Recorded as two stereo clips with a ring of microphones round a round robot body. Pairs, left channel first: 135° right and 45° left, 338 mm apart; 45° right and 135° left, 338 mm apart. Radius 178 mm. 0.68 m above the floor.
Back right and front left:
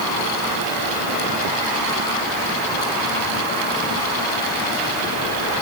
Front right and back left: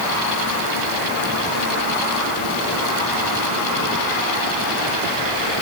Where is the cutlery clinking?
No cutlery clinking in this recording.